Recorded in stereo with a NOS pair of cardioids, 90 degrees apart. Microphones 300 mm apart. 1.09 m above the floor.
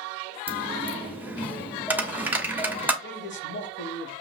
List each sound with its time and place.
0.5 s a dropped coin: 5° right, 1.2 m
3.0 s a man speaking: 40° left, 1.3 m